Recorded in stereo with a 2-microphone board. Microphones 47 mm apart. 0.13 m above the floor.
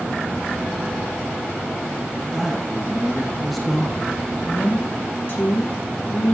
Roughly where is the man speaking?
Centre.